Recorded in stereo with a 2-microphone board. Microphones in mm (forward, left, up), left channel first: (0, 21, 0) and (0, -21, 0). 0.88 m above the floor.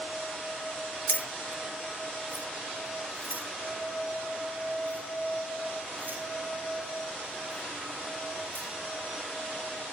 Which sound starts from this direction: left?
Keys jangling, at 1.1 s.